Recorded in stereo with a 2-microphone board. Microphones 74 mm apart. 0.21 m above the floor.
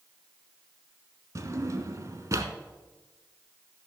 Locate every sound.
1.4 s a drawer: 45° right (ahead or behind), 0.9 m